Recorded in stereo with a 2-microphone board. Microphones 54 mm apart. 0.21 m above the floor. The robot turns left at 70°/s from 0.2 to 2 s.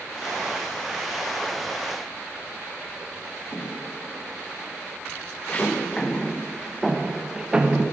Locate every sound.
3.5 s footsteps: 65° left (ahead or behind), 1.9 m; by 7.8 s 20° right (ahead or behind), 1.7 m